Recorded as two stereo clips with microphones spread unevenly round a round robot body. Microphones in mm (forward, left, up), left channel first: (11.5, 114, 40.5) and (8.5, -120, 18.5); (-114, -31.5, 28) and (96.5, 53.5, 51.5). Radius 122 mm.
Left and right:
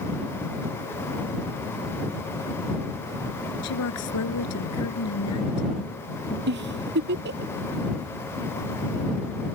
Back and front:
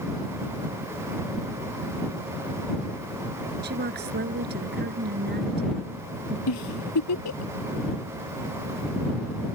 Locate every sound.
3.6 s a woman speaking: 70° left
6.5 s a giggle: 140° right